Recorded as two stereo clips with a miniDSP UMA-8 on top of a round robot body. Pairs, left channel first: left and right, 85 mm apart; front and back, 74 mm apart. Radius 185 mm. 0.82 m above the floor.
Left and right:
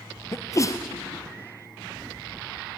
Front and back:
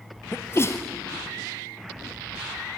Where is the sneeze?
45° left, 1.1 m.